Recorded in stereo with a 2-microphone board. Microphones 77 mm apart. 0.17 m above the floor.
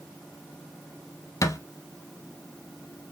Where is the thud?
45° left (ahead or behind), 0.7 m.